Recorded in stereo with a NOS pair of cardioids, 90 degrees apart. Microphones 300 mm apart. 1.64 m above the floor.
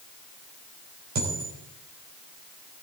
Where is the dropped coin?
60° right, 4.5 m.